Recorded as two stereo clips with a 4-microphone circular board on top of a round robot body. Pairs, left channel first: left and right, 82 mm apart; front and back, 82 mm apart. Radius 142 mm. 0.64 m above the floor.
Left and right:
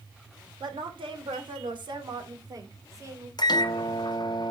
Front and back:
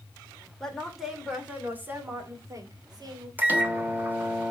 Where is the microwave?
115° left, 1.4 m.